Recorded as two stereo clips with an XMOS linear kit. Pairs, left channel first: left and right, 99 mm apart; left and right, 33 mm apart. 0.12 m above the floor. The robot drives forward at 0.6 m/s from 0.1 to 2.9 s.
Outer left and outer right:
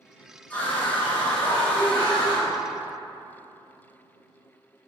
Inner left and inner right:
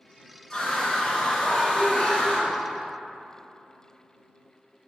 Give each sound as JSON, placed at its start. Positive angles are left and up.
{"t": 0.5, "sound": "a scream", "side_deg": 15, "distance_m": 1.6}